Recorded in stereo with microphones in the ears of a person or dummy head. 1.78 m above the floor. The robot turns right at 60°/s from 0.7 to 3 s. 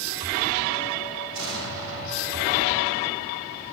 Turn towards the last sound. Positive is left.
turn(degrees=-10)